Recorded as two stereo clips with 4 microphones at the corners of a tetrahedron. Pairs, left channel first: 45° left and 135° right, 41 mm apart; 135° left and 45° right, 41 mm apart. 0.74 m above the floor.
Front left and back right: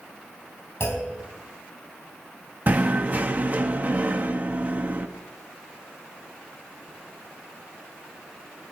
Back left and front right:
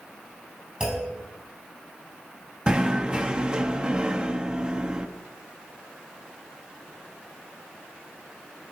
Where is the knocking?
105° right, 0.7 m.